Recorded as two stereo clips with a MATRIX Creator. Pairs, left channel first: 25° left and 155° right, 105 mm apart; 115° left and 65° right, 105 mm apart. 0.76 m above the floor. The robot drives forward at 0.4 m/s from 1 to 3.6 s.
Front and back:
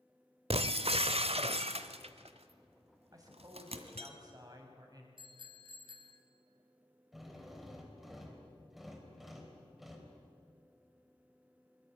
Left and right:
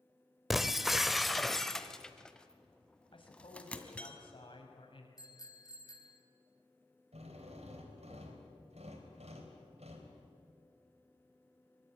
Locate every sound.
0.5 s breaking glass: 155° right, 0.9 m; by 4.1 s 170° right, 1.8 m
3.1 s a man speaking: 150° left, 5 m
5.2 s a bicycle bell: 165° left, 3 m
7.1 s a drill: 70° right, 3.5 m